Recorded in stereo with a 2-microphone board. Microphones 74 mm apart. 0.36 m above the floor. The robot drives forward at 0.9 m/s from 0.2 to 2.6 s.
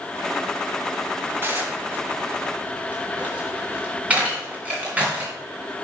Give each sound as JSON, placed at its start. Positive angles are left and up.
{"t": 1.4, "sound": "dishes clattering", "side_deg": -30, "distance_m": 1.6}